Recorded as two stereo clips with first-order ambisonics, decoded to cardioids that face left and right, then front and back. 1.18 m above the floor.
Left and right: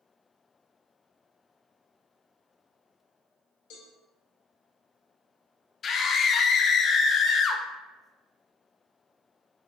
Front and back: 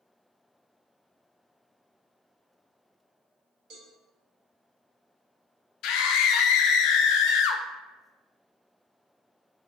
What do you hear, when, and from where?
3.7 s a cowbell: 125° left, 1.2 m
5.8 s a scream: 30° left, 0.5 m